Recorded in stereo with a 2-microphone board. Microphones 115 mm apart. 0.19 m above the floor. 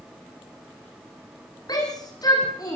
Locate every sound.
1.7 s a shout: 35° left (ahead or behind), 9.5 m